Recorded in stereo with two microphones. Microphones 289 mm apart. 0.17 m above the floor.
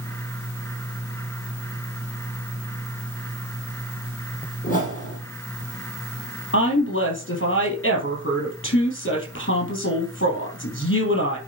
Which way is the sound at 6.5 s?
45° left (ahead or behind).